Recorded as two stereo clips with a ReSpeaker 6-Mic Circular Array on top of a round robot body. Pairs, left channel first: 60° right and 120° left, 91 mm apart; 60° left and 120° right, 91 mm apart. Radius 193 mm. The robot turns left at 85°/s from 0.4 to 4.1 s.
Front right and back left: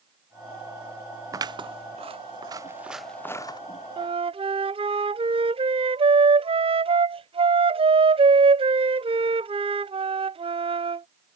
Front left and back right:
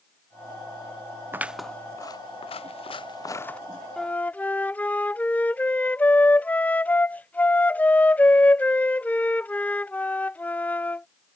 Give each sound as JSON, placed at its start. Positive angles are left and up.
{"t": 1.3, "sound": "scissors", "azimuth_deg": 175}
{"t": 4.0, "sound": "a flute", "azimuth_deg": 145}